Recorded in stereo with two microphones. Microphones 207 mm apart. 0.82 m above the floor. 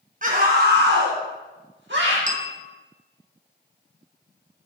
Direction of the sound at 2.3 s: 25° left (ahead or behind).